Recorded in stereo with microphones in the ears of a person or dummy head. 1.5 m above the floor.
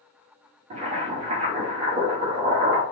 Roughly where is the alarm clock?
No alarm clock in this recording.